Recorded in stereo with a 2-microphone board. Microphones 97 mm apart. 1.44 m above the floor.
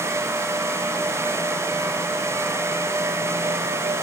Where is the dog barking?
I don't hear a dog barking.